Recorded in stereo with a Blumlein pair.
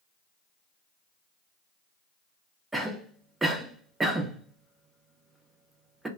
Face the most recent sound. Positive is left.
turn(degrees=-5)